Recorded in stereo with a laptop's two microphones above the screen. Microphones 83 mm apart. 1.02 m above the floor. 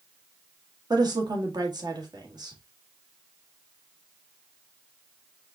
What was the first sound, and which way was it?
A woman speaking, 55° right (ahead or behind).